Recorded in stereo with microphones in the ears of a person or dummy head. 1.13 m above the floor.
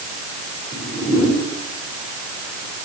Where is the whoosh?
20° right (ahead or behind), 4 m.